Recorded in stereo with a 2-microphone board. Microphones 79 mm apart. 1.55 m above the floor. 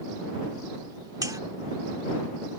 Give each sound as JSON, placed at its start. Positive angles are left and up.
{"t": 1.2, "sound": "a buzzer", "side_deg": -50}